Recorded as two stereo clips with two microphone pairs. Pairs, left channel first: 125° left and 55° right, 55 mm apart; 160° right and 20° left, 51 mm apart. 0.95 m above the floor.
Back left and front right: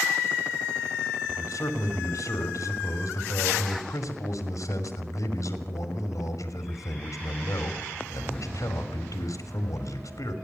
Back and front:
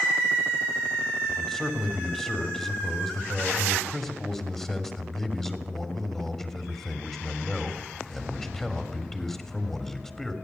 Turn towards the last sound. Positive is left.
turn(degrees=125)